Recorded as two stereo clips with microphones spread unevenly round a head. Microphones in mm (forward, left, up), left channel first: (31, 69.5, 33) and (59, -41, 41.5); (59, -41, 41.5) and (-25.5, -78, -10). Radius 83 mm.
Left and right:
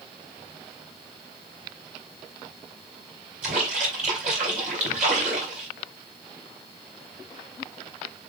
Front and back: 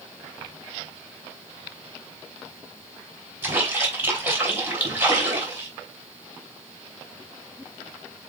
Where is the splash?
70° right, 3 m.